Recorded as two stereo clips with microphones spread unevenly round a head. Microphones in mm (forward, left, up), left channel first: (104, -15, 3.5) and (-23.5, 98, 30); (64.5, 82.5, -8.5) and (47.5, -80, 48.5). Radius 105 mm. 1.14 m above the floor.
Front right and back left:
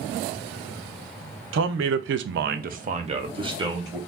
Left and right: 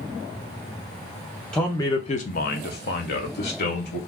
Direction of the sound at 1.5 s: 165° left.